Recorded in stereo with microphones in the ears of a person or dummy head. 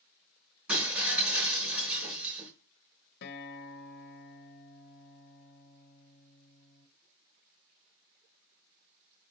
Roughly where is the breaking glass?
Centre.